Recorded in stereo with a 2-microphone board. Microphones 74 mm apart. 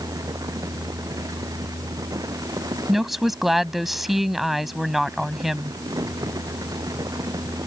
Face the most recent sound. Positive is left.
turn(degrees=-5)  # may be behind; listen again after turning